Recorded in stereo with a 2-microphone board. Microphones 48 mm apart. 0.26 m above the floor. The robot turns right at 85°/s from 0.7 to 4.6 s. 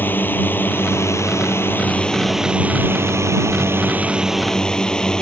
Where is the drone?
45° left; by 5.2 s 15° left.